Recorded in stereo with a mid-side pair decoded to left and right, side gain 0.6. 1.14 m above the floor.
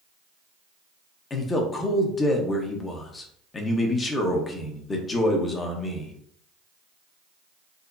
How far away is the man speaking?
About 1.0 m.